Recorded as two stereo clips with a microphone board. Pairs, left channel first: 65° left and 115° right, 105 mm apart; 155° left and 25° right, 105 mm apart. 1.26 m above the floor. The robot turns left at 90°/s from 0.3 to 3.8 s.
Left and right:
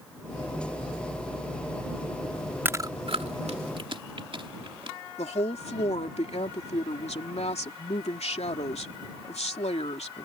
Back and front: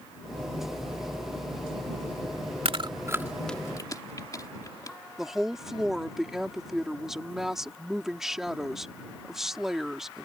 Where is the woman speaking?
65° left.